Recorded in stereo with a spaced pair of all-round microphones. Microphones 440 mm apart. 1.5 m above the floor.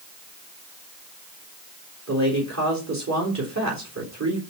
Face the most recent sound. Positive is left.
turn(degrees=-40)  # may be behind; listen again after turning